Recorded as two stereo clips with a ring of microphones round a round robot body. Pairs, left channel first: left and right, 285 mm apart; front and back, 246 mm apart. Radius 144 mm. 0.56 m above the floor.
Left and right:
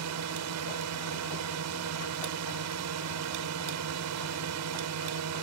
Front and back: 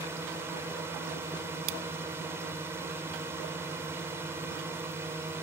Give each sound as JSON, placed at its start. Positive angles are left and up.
{"t": 0.0, "sound": "a drone", "azimuth_deg": -100}